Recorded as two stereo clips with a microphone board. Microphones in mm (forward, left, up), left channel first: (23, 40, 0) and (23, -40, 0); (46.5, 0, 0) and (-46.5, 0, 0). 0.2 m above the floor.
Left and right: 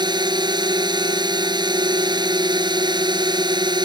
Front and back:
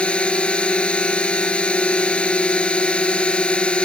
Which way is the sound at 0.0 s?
75° right.